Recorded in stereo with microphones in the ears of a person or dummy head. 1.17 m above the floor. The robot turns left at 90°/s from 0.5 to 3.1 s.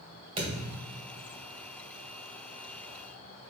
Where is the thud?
35° right, 1.7 m; by 1.3 s 105° right, 1.7 m.